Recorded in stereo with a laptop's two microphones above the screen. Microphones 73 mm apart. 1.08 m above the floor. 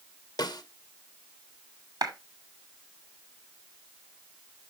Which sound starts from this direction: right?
A clap, at 2.0 s.